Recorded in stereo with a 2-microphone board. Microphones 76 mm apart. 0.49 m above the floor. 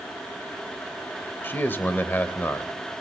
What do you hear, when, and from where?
1.4 s a man speaking: 25° left (ahead or behind), 2.0 m